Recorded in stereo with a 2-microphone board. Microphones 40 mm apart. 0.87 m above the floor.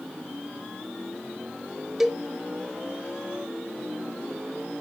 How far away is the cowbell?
About 0.8 m.